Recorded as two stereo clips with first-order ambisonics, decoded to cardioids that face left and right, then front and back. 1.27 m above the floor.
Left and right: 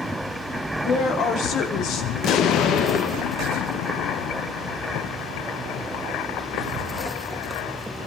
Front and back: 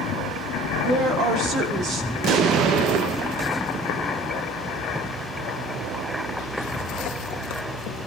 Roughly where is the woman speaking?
Behind left.